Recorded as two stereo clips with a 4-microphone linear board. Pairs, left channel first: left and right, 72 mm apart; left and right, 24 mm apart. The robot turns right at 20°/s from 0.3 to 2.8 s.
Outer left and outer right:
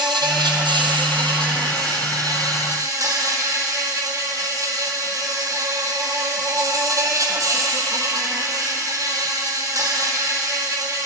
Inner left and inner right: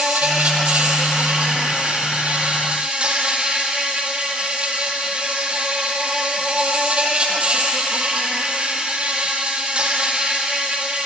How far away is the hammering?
No hammering in this recording.